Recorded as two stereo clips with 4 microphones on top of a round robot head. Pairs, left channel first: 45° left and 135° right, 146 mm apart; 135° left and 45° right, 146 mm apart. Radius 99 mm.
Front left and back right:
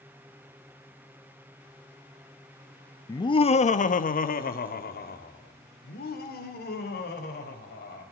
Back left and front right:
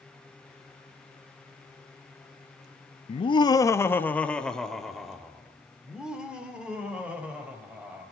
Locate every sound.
3.1 s laughter: 105° left, 0.7 m; by 8.0 s 35° left, 4 m